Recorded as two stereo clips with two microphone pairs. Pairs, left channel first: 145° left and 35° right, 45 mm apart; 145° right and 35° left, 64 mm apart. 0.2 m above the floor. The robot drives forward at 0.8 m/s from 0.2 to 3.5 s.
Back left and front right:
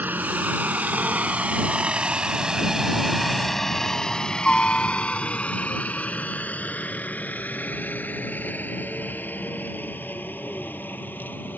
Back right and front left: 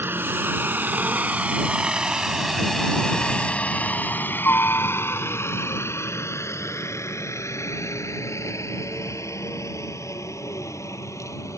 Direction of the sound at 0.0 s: 10° right.